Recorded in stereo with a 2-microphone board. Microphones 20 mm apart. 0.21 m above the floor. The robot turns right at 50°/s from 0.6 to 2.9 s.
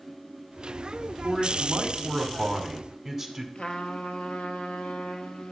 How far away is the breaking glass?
I don't hear breaking glass.